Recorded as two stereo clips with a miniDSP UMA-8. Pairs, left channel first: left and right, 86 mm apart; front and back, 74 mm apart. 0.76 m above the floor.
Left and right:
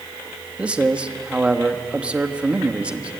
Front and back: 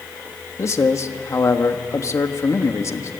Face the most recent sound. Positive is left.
turn(degrees=-20)